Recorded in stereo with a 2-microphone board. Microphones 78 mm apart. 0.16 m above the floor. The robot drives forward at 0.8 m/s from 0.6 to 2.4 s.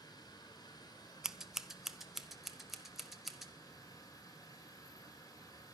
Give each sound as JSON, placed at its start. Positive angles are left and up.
{"t": 0.0, "sound": "running water", "side_deg": 60, "distance_m": 5.5}
{"t": 1.2, "sound": "scissors", "side_deg": -10, "distance_m": 0.6}